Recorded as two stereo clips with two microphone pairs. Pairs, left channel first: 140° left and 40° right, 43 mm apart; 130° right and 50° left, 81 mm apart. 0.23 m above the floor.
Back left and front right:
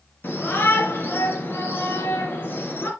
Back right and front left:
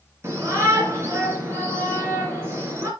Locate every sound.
0.2 s a shout: 105° left, 3.5 m